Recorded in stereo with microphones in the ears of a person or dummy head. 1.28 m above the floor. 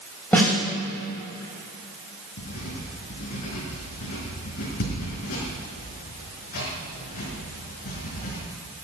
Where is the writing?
50° left (ahead or behind), 4.5 m.